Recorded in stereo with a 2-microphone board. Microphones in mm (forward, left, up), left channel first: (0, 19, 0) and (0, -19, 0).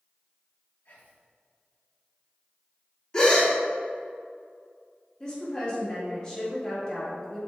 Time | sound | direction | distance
0.8 | whispering | 70° left (ahead or behind) | 2.0 m
3.1 | a gasp | 25° left (ahead or behind) | 1.6 m
5.2 | a woman speaking | 25° left (ahead or behind) | 2.5 m